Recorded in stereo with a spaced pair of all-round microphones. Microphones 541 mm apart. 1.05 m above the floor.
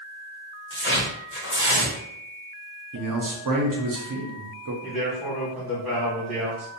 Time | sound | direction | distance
0.7 | tearing paper | 25° left (ahead or behind) | 0.9 m
2.9 | a man speaking | 40° right (ahead or behind) | 0.6 m
4.8 | a man speaking | centre (ahead or behind) | 1.3 m